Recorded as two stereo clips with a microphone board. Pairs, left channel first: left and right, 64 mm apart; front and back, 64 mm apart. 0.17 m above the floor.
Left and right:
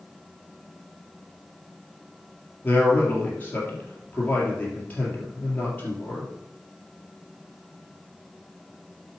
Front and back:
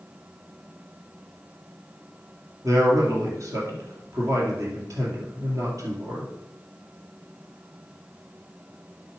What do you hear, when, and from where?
2.6 s a man speaking: 150° left, 4 m